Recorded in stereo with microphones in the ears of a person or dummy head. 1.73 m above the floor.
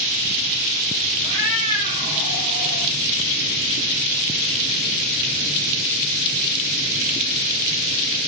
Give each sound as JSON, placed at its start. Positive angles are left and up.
{"t": 1.2, "sound": "a cat meowing", "side_deg": -25, "distance_m": 1.0}